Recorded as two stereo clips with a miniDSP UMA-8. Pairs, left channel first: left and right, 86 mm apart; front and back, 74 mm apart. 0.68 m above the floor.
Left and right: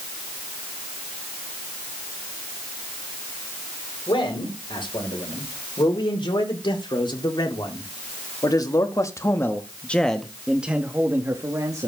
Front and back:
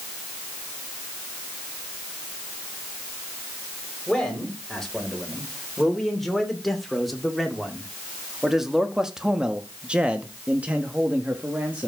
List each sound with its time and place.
4.1 s a man speaking: 85° left, 3.5 m; by 11.9 s 115° right, 1.4 m